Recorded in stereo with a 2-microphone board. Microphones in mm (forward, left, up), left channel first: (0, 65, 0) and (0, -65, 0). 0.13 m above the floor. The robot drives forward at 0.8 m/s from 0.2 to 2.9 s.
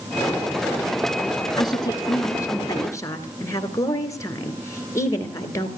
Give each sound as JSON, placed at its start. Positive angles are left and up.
{"t": 1.6, "sound": "a woman speaking", "side_deg": 30, "distance_m": 1.6}